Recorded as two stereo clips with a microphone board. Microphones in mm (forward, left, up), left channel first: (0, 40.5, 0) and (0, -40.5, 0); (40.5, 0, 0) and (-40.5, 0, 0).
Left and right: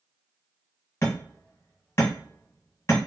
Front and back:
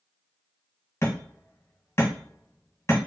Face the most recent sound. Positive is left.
turn(degrees=40)